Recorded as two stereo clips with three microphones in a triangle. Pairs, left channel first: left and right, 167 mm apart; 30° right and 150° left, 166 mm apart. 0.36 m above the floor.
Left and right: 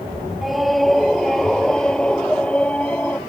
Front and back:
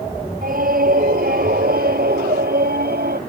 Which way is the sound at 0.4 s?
Straight behind.